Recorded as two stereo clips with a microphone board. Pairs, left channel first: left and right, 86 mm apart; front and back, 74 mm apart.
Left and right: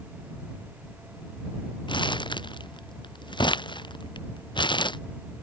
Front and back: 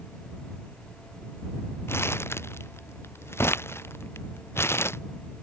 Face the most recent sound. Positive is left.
turn(degrees=60)